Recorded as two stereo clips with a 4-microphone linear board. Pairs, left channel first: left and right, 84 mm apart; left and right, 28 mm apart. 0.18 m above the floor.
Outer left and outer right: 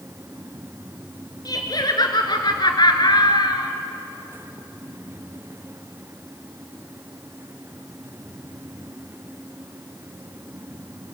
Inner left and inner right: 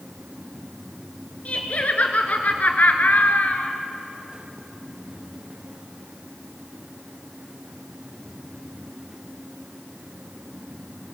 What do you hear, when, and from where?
1.4 s laughter: 50° left (ahead or behind), 2 m; by 3.7 s 55° left (ahead or behind), 2.5 m